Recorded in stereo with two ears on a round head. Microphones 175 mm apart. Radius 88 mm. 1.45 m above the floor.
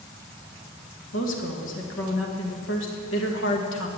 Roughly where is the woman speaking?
Left.